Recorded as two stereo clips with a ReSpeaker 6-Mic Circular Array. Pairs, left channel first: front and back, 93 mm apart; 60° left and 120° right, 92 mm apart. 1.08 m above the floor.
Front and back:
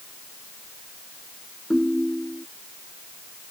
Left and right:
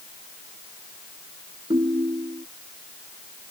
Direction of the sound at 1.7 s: 90° right.